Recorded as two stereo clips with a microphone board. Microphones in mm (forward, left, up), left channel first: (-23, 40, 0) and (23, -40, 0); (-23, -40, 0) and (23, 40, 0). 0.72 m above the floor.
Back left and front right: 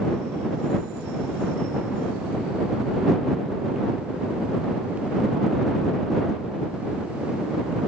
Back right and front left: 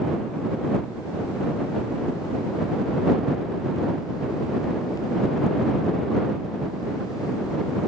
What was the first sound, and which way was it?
Only background noise.